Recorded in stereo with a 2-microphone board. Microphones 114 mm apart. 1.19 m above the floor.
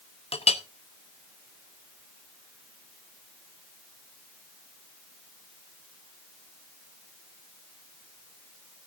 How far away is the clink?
About 0.9 m.